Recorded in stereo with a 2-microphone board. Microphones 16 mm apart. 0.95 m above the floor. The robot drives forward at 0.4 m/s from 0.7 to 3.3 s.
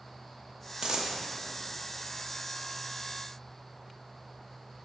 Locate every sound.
0.8 s a dropped coin: 55° right (ahead or behind), 0.6 m; by 1.2 s 45° right (ahead or behind), 0.6 m